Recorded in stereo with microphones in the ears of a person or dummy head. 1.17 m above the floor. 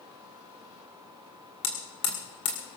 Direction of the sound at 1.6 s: 20° left (ahead or behind).